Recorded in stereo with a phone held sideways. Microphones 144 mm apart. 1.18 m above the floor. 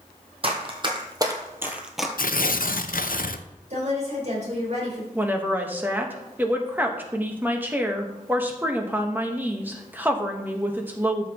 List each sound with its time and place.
0.4 s running footsteps: 40° right (ahead or behind), 2 m; by 2.1 s centre (ahead or behind), 1.2 m
2.2 s tearing paper: 80° left, 0.5 m
3.7 s a woman speaking: 55° right (ahead or behind), 5 m
5.2 s a woman speaking: 10° right (ahead or behind), 1.3 m